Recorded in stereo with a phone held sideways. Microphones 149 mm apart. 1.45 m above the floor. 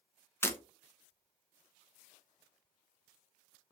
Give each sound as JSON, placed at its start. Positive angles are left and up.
{"t": 0.4, "sound": "breaking glass", "side_deg": 15, "distance_m": 0.6}